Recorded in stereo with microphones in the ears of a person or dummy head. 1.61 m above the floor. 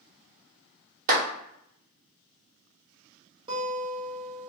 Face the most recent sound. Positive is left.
turn(degrees=-25)  # may be behind; listen again after turning